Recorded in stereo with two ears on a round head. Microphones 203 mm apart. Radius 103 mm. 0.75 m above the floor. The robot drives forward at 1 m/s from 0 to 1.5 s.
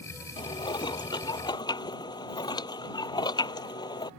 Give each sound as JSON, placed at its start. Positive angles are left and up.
{"t": 0.4, "sound": "dishes clattering", "side_deg": 20}